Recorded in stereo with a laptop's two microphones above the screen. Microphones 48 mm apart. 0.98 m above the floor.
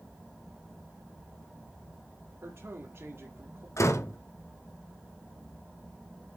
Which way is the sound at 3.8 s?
70° left (ahead or behind).